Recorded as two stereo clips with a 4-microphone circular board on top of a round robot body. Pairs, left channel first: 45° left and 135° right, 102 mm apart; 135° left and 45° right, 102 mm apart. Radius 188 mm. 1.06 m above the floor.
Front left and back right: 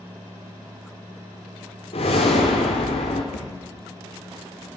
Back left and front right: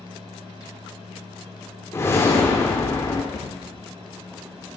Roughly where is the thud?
Ahead left.